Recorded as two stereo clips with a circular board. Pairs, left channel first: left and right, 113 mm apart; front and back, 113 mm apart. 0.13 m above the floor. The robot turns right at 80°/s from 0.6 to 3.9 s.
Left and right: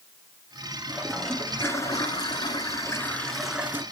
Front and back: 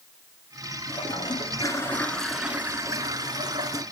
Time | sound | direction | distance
0.9 | a toilet flushing | 25° right | 1.3 m